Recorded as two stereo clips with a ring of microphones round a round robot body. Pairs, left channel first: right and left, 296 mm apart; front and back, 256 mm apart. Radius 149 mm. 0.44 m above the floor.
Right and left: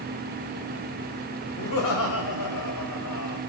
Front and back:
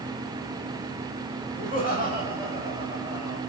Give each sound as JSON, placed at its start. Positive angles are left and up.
{"t": 1.6, "sound": "laughter", "azimuth_deg": -110, "distance_m": 2.5}